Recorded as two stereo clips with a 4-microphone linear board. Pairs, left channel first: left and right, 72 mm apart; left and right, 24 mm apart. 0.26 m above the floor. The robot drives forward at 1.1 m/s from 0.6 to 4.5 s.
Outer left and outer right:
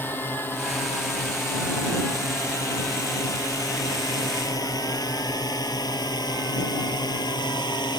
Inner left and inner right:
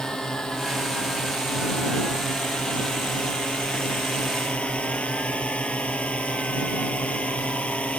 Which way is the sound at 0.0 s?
25° left (ahead or behind).